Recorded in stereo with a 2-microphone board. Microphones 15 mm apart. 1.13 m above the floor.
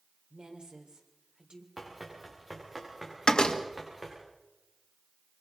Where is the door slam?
80° left, 1.6 m.